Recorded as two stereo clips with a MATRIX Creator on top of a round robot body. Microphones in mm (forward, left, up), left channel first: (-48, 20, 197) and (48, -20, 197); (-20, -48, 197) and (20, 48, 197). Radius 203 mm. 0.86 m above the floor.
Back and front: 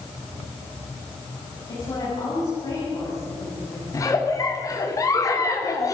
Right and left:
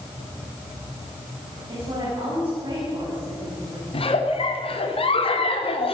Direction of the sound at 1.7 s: 110° left.